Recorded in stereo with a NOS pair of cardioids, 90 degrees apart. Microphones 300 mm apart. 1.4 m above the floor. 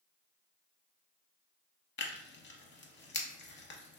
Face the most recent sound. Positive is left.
turn(degrees=40)